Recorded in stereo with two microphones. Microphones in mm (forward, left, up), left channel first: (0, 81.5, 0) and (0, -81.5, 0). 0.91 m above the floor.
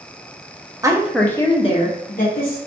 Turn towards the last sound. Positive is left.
turn(degrees=65)  # may be behind; listen again after turning